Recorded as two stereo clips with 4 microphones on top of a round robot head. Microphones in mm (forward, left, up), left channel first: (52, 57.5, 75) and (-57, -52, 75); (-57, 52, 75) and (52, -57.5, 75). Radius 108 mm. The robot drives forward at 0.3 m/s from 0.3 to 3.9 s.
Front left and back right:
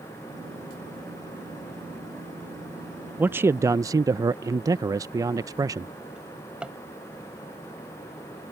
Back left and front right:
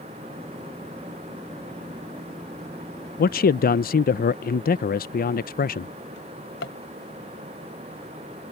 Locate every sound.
3.2 s a man speaking: 145° left; by 5.9 s 160° left
6.2 s a drawer: 140° left